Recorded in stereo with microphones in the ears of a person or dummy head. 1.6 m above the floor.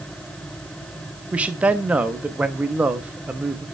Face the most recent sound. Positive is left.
turn(degrees=-15)  # may be behind; listen again after turning